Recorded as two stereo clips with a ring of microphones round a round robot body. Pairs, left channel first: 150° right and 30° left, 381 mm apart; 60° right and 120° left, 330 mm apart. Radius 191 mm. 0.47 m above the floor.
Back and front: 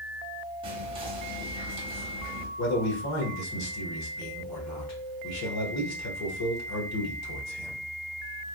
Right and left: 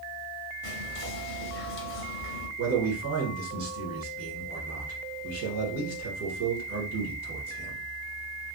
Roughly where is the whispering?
Ahead right.